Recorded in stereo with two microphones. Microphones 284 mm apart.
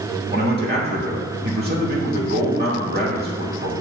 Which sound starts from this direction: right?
A man speaking, at 0.3 s.